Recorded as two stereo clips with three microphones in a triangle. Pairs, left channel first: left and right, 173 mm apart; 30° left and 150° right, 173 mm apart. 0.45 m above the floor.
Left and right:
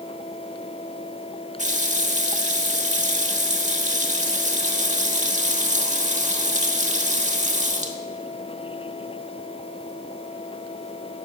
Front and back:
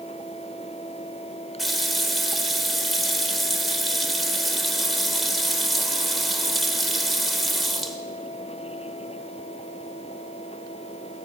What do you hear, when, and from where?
1.6 s a running tap: 60° right, 1.1 m